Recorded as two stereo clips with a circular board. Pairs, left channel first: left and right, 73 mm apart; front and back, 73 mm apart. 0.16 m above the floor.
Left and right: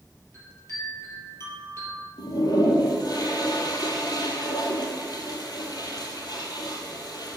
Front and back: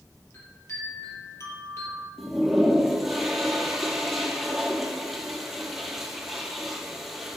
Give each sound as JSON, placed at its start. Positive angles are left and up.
{"t": 0.3, "sound": "a chime", "azimuth_deg": 45, "distance_m": 3.0}
{"t": 2.2, "sound": "a toilet flushing", "azimuth_deg": 90, "distance_m": 1.7}